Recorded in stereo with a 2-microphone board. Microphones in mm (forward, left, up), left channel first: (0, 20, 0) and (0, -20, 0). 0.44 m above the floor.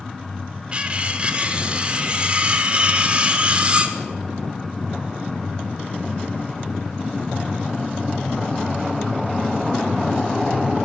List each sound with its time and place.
0.7 s cutlery clinking: 25° right (ahead or behind), 1.1 m